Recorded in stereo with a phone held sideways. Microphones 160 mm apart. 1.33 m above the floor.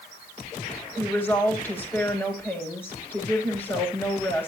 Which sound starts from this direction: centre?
A woman speaking, at 1.0 s.